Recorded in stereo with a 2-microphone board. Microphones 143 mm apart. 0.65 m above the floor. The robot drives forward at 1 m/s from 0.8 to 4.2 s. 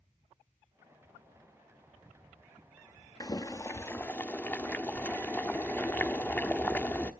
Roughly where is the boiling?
Left.